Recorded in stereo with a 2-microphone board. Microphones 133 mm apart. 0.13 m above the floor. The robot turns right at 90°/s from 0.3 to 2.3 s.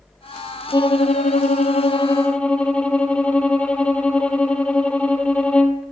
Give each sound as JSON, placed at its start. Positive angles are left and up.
{"t": 0.7, "sound": "a violin", "azimuth_deg": 30, "distance_m": 0.6}